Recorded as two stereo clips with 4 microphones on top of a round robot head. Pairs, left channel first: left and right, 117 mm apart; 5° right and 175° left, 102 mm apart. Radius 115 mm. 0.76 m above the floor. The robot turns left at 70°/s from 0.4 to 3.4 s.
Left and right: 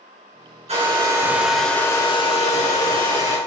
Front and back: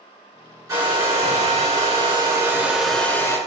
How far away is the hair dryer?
About 3 m.